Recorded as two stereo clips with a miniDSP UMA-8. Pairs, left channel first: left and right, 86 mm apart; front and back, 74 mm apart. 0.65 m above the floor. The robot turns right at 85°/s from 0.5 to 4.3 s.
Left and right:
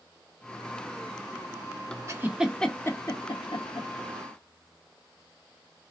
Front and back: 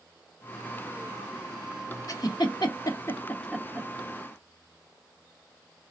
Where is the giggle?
35° right, 0.9 m; by 3.9 s 115° left, 0.9 m.